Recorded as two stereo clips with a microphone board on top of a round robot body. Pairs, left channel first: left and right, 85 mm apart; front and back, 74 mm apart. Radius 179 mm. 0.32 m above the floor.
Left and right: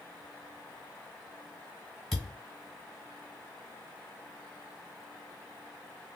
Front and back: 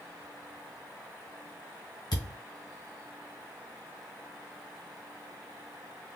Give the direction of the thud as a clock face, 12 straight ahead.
12 o'clock.